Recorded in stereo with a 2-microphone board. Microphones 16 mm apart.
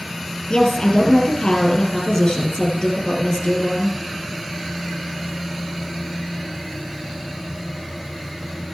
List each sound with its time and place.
0.5 s a woman speaking: 60° left (ahead or behind), 3 m